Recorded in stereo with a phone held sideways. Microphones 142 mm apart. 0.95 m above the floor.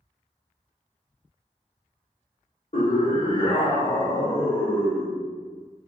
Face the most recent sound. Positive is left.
turn(degrees=-5)  # may be behind; listen again after turning